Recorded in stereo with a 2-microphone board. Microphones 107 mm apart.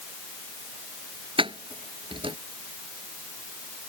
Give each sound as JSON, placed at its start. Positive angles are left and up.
{"t": 1.4, "sound": "keys jangling", "side_deg": -55}